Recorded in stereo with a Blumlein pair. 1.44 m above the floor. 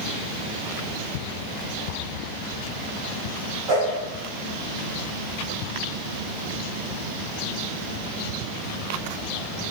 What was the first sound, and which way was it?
A whoosh, 20° right.